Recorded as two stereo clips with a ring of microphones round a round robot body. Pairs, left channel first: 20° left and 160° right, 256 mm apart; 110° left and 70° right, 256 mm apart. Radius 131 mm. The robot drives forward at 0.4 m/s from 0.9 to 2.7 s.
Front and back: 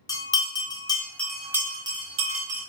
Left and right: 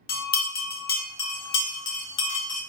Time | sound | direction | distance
0.1 | a bell | 90° left | 0.7 m